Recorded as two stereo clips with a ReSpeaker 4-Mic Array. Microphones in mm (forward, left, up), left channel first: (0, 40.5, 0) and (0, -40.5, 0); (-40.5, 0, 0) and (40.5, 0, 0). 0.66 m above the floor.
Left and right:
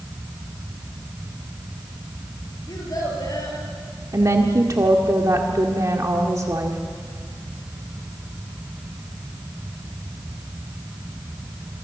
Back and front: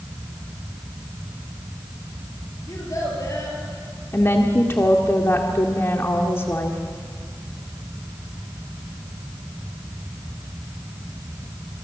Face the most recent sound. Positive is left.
turn(degrees=-130)